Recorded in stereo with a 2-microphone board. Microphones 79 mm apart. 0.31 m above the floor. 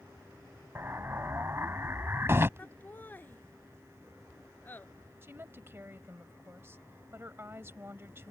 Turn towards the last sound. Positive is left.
turn(degrees=-30)  # may be behind; listen again after turning